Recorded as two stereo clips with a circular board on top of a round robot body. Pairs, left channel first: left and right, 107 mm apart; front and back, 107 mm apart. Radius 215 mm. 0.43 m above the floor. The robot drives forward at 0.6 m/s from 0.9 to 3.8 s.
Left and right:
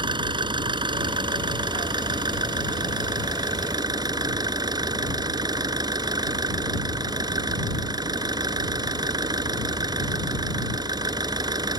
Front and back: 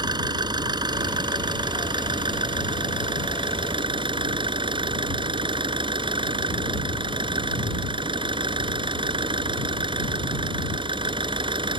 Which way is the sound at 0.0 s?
135° right.